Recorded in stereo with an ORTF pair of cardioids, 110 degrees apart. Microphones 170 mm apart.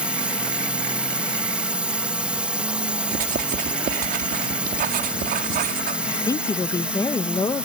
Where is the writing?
60° right.